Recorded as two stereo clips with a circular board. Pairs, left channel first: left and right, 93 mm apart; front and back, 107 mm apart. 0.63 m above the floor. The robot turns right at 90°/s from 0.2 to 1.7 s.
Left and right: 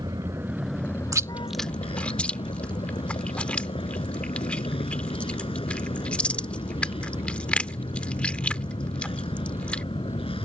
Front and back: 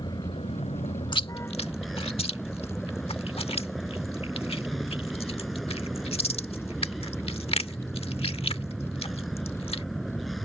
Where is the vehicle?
45° right; by 10.4 s 90° left.